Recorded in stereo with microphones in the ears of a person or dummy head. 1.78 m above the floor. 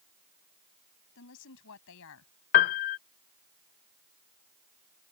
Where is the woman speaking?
70° left (ahead or behind); by 2.3 s 75° left (ahead or behind).